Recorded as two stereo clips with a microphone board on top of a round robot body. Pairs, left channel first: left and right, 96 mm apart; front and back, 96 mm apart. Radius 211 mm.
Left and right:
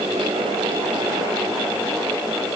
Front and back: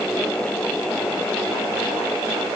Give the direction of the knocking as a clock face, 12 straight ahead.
I don't hear knocking.